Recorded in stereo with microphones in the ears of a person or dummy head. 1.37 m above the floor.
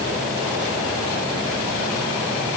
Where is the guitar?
I don't hear a guitar.